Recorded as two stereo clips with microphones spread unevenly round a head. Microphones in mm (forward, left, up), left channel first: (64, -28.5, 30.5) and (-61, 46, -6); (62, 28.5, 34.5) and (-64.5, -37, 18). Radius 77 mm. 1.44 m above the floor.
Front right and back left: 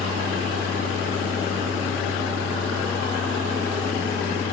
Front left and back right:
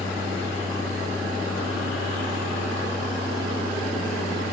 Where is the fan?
65° right, 9.5 m.